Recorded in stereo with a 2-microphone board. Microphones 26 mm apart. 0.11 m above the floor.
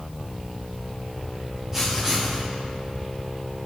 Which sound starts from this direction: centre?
Writing, at 1.7 s.